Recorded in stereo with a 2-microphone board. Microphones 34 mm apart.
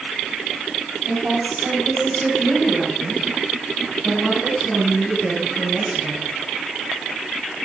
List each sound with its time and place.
1.1 s a woman speaking: 45° right (ahead or behind), 6 m; by 6.3 s 30° right (ahead or behind), 9.5 m